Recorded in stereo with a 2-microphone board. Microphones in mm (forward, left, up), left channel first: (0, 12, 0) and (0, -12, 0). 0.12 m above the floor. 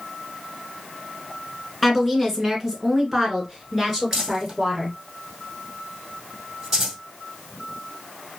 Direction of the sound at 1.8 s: Centre (ahead or behind).